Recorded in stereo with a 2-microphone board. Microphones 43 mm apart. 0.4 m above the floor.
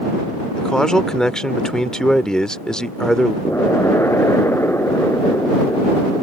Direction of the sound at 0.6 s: 15° left (ahead or behind).